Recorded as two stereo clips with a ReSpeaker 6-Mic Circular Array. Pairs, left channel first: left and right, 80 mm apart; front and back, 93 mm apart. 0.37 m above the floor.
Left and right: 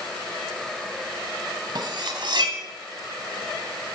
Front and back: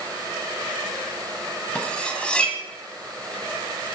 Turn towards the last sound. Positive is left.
turn(degrees=-80)